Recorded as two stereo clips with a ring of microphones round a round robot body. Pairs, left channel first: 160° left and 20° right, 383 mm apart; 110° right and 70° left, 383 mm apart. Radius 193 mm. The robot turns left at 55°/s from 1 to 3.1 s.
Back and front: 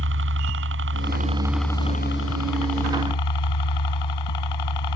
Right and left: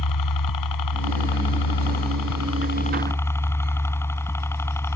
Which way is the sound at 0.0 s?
80° right.